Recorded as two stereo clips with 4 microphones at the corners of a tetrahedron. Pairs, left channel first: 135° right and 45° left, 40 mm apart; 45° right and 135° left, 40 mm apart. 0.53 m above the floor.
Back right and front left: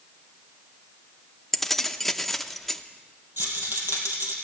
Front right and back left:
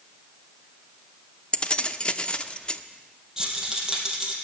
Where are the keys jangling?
55° right, 0.6 m.